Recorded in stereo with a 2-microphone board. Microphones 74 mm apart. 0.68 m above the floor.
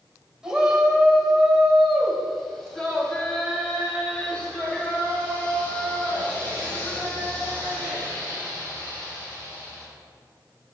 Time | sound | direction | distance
0.4 | a shout | 10° right (ahead or behind) | 3 m